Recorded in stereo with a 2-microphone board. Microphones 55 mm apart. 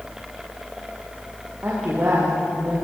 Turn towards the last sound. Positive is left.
turn(degrees=-40)  # may be behind; listen again after turning